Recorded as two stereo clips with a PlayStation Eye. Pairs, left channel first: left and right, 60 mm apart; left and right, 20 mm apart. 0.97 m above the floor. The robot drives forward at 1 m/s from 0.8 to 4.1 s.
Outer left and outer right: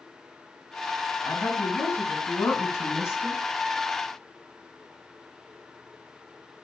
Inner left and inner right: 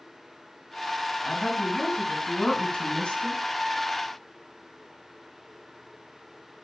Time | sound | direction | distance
1.2 | a woman speaking | 35° left (ahead or behind) | 6.5 m